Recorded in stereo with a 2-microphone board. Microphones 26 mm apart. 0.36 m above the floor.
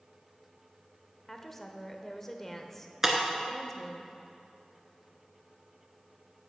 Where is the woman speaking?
15° left (ahead or behind), 0.8 m.